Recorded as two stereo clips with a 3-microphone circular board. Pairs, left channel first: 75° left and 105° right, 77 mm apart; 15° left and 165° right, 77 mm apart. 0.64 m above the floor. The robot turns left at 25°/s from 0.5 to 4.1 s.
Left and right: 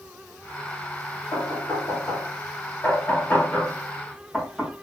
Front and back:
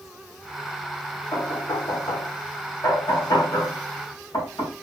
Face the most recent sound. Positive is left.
turn(degrees=-15)